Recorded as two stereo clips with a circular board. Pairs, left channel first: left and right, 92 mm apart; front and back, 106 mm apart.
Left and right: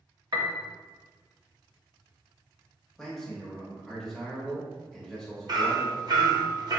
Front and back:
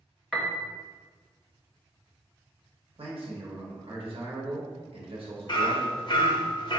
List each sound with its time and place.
0.3 s a piano: 90° right, 0.6 m
3.0 s a man speaking: 175° left, 1.0 m
5.5 s hammering: 45° right, 0.6 m